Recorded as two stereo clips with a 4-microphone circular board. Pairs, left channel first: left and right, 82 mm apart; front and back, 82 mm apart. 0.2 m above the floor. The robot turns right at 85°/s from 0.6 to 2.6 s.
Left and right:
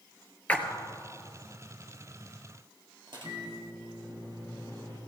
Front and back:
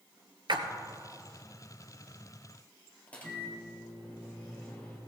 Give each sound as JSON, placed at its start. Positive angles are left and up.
{"t": 0.5, "sound": "a splash", "azimuth_deg": 165, "distance_m": 1.2}
{"t": 3.1, "sound": "a microwave", "azimuth_deg": -70, "distance_m": 3.5}